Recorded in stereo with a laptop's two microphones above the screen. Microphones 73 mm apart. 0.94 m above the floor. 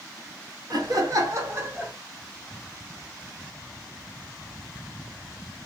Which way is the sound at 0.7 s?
65° right (ahead or behind).